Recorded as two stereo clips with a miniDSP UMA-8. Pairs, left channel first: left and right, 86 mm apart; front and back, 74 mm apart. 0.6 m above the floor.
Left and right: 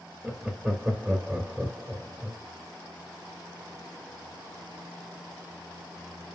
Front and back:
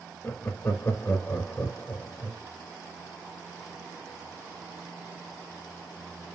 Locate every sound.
0.2 s laughter: 15° right, 1.0 m